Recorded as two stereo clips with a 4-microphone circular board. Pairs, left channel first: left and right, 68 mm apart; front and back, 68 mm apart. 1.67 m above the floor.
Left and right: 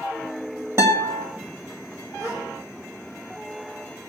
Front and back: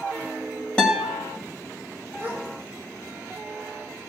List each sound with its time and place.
0.8 s a guitar: 70° right, 2.0 m
2.2 s a gasp: 120° right, 4 m